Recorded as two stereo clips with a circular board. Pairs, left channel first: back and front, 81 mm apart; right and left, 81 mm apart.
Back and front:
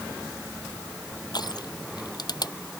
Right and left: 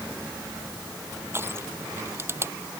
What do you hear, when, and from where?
1.3 s crushing: 150° left